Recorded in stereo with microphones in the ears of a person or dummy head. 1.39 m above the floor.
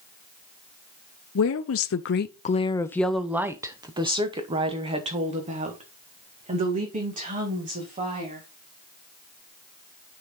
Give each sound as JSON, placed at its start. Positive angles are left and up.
{"t": 1.4, "sound": "a woman speaking", "side_deg": 65, "distance_m": 0.7}